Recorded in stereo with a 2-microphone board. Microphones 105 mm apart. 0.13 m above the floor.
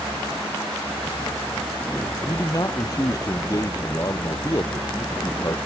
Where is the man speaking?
35° left (ahead or behind).